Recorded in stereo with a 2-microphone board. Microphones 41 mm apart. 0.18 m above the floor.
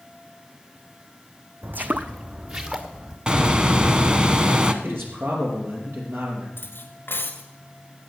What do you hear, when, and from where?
1.6 s footsteps: 55° right (ahead or behind), 0.6 m; by 3.2 s 20° right (ahead or behind), 1.7 m
3.3 s a bird: 25° right (ahead or behind), 0.8 m
4.8 s a man speaking: 70° right (ahead or behind), 4.5 m
6.6 s cutlery clinking: 65° left (ahead or behind), 1.5 m